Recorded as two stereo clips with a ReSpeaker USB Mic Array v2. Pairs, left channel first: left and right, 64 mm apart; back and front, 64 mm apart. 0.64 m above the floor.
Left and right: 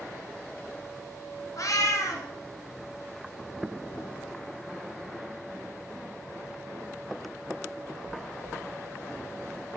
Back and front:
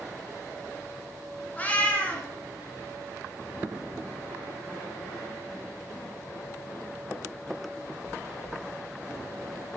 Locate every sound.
1.6 s a cat meowing: 115° left, 1.4 m